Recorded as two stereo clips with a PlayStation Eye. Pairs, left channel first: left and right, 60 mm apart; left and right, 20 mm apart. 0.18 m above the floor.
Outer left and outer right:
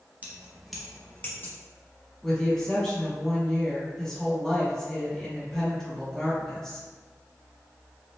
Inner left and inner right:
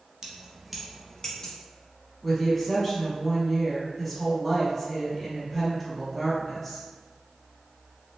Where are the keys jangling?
30° right (ahead or behind), 0.8 m; by 1.5 s 40° left (ahead or behind), 1.1 m.